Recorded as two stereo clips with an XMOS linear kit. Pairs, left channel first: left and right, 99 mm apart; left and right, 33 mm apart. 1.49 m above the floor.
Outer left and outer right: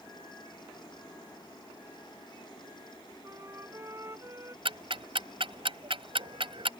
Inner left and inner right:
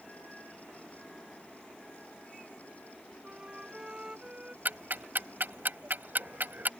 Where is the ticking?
65° right (ahead or behind).